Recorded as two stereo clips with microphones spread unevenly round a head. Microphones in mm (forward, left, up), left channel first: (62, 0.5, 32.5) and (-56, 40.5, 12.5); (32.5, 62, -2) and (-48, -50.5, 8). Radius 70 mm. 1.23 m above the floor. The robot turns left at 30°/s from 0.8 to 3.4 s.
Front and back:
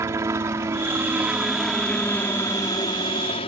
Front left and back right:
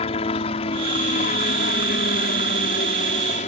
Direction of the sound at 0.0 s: 95° left.